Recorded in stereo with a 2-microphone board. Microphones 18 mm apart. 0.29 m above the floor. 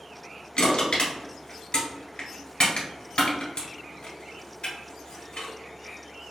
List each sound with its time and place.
0.6 s crushing: 80° left, 1.7 m